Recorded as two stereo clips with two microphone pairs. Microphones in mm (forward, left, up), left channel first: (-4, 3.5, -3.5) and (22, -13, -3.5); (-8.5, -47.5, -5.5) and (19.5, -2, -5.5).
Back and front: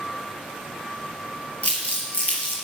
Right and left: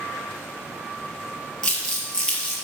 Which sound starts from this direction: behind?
Crumpling, at 1.6 s.